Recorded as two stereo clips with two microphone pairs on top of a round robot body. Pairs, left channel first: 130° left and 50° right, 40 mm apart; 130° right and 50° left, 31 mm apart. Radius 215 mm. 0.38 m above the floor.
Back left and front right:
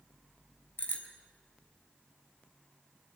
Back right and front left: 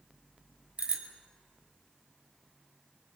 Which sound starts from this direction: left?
A bicycle bell, at 0.8 s.